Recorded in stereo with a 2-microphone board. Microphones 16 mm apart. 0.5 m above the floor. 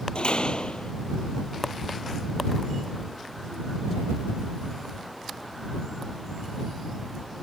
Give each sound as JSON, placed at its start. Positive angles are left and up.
{"t": 0.1, "sound": "a door slam", "side_deg": 75}